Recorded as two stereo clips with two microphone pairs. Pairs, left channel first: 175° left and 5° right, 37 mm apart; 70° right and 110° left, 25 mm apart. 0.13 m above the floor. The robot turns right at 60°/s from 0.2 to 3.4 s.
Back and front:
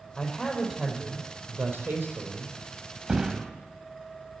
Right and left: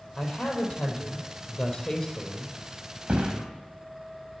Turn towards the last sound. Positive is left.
turn(degrees=85)